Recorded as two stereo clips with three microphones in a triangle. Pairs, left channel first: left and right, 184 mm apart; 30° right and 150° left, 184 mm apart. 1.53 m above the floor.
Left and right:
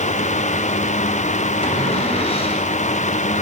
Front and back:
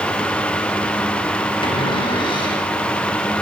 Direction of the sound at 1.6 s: 30° left.